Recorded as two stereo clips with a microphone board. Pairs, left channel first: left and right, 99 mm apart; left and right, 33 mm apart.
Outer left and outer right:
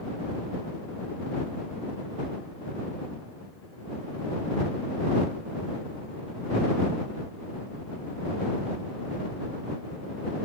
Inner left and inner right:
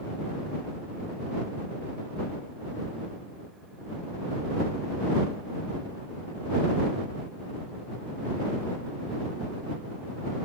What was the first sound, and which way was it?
Only background noise.